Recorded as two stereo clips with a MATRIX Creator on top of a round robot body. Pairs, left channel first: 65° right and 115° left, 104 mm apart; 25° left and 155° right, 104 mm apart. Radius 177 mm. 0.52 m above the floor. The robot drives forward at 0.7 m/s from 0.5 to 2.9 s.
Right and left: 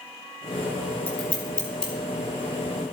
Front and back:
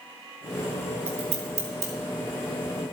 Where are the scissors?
145° right, 1.8 m; by 1.9 s 150° right, 2.5 m.